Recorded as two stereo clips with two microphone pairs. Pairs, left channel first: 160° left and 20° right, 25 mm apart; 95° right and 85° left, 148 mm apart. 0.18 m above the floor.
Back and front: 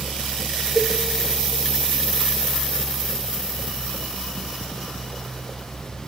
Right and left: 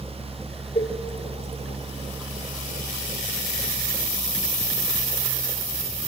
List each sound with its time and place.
0.8 s a cowbell: 135° right, 3.5 m